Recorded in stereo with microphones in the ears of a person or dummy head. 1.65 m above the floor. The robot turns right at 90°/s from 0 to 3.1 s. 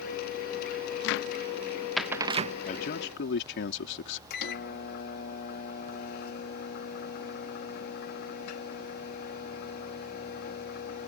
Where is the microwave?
65° left (ahead or behind).